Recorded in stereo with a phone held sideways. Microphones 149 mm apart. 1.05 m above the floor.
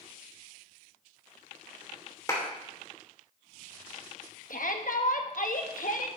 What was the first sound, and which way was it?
A clap, 20° left (ahead or behind).